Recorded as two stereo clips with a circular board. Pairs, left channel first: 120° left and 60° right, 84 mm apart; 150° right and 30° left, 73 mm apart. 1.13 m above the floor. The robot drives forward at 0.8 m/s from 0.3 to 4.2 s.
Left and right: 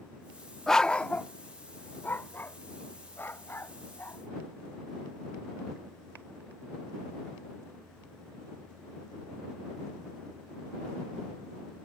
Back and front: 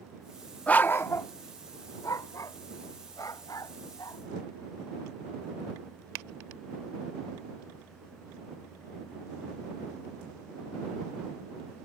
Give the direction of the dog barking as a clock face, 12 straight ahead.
5 o'clock.